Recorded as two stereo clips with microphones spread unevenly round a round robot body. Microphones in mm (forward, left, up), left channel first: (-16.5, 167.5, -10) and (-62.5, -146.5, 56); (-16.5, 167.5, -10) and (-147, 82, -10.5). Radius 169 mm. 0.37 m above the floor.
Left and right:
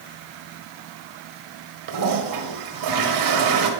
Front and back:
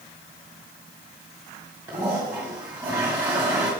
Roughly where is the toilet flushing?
Right.